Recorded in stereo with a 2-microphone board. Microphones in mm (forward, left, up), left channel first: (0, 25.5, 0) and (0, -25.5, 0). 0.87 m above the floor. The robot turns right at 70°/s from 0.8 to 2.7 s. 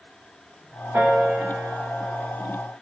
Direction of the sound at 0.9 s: 50° right (ahead or behind).